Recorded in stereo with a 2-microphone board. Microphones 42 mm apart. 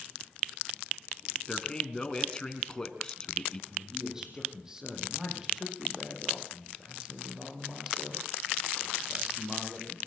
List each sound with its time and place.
1.5 s a man speaking: 15° left (ahead or behind), 3 m
3.7 s a man speaking: 10° right (ahead or behind), 8.5 m